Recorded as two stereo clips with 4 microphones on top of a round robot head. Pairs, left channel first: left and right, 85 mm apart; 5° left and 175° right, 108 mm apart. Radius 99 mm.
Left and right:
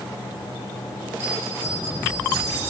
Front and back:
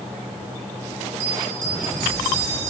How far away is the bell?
About 7 m.